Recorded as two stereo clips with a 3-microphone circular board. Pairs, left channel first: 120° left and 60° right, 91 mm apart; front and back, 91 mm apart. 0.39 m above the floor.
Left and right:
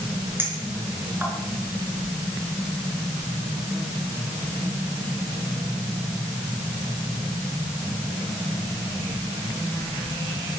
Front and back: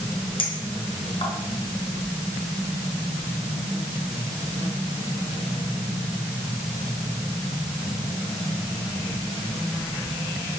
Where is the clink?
5° left, 4 m.